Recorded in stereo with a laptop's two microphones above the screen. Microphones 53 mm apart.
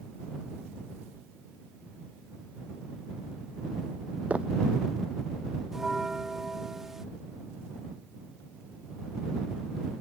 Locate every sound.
4.3 s footsteps: 25° right (ahead or behind)
5.7 s a bell: 5° right (ahead or behind)